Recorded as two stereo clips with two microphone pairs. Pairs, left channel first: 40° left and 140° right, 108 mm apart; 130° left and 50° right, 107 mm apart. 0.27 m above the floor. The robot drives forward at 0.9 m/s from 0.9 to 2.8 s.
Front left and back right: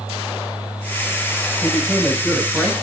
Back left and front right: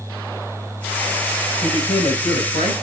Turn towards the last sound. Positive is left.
turn(degrees=130)